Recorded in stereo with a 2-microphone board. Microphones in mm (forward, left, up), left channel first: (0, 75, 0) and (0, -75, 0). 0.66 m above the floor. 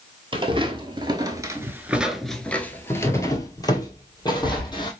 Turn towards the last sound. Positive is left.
turn(degrees=30)  # may be behind; listen again after turning